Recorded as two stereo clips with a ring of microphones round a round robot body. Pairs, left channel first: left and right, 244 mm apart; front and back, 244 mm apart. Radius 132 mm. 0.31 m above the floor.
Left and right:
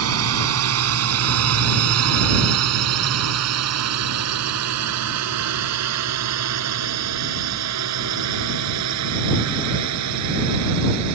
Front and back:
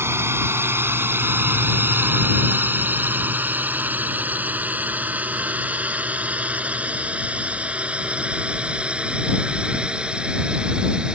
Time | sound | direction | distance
0.0 | a drone | 100° right | ?